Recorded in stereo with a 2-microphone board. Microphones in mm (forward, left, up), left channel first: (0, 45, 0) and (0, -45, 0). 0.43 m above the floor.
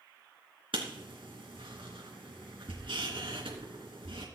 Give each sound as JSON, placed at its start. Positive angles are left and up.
{"t": 0.7, "sound": "writing", "side_deg": -85, "distance_m": 3.0}